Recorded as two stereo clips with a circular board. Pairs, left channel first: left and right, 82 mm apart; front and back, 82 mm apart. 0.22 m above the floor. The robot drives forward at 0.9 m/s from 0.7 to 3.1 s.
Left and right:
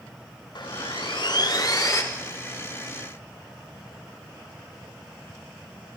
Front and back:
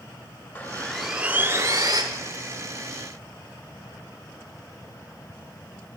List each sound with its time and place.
0.6 s sawing: 65° left, 0.7 m; by 2.0 s 145° left, 1.1 m